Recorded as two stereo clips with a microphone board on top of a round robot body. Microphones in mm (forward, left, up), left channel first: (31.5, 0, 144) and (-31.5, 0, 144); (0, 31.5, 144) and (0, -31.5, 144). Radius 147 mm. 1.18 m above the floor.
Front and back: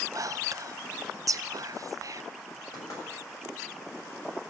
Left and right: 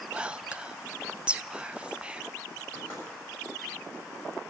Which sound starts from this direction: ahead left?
Knocking, at 2.7 s.